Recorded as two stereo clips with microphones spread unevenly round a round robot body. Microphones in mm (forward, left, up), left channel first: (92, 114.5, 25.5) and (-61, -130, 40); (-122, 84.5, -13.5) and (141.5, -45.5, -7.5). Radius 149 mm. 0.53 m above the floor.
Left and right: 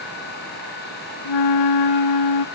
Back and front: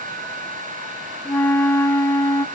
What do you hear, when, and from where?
1.2 s a flute: 70° left, 0.7 m